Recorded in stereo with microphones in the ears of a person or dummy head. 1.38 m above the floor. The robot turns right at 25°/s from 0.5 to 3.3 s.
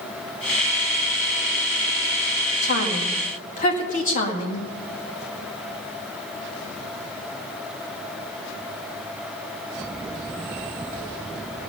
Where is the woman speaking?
65° left (ahead or behind), 1.9 m; by 4.7 s 45° left (ahead or behind), 1.9 m.